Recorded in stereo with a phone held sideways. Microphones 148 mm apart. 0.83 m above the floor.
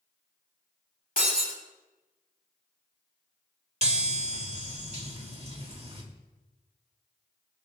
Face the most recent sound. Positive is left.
turn(degrees=-45)  # may be behind; listen again after turning